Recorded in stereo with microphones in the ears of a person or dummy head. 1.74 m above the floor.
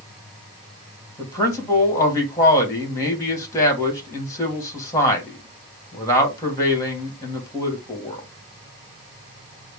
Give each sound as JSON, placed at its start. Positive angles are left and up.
{"t": 1.2, "sound": "a man speaking", "side_deg": 15, "distance_m": 2.0}